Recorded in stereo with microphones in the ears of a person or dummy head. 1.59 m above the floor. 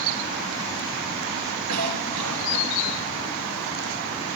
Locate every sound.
1.7 s a cough: 80° right, 2 m